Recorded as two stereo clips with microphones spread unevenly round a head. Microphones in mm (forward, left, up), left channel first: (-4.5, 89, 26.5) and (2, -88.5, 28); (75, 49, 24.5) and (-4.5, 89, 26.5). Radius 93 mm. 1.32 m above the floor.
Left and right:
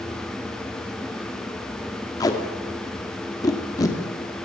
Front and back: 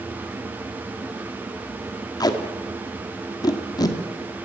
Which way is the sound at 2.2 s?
20° left.